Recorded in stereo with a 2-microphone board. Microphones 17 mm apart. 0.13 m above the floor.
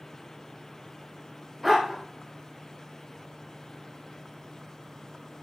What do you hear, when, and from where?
1.6 s a dog barking: 5° right (ahead or behind), 5.5 m